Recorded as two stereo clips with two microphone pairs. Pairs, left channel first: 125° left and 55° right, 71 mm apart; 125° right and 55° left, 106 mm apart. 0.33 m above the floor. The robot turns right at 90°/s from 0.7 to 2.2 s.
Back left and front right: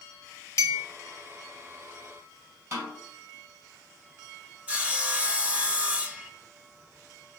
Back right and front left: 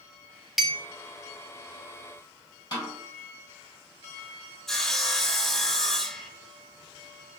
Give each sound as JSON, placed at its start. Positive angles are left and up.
{"t": 0.6, "sound": "a clink", "azimuth_deg": 145, "distance_m": 0.6}
{"t": 2.7, "sound": "a snare drum", "azimuth_deg": -85, "distance_m": 2.5}
{"t": 4.7, "sound": "sawing", "azimuth_deg": -55, "distance_m": 0.6}